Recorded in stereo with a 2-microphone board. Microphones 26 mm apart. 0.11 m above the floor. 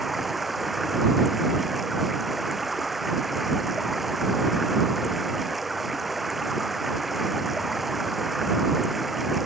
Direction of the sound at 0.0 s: 5° right (ahead or behind).